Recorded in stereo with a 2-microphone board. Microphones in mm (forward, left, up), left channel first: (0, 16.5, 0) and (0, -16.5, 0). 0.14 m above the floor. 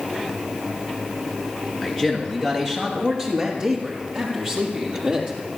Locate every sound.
1.8 s a man speaking: 5° right (ahead or behind), 2 m; by 5.4 s 30° right (ahead or behind), 4 m